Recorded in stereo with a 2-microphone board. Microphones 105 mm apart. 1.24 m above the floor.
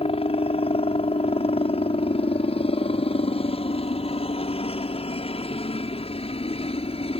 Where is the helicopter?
65° left (ahead or behind).